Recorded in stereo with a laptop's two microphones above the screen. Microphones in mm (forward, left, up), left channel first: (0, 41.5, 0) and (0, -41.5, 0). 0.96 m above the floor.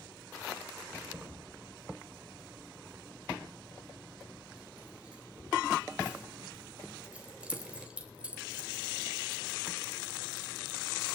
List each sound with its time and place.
0.9 s keys jangling: 10° right (ahead or behind), 3.5 m